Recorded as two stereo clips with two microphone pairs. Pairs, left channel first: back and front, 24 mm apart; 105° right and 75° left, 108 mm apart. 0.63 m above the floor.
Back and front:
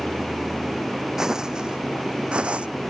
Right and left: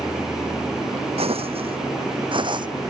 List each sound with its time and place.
1.2 s footsteps: 70° left; by 2.7 s 40° left